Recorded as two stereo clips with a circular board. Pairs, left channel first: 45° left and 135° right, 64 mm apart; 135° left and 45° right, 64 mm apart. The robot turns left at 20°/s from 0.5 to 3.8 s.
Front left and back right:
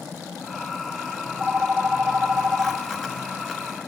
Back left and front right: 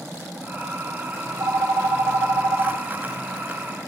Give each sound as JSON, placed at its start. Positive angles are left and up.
{"t": 1.2, "sound": "a phone ringing", "azimuth_deg": -55, "distance_m": 2.5}